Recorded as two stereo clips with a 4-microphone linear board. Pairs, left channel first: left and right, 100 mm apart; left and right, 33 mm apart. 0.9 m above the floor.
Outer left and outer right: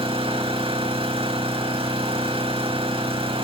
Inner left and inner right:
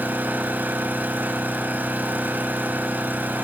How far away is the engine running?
About 5.5 m.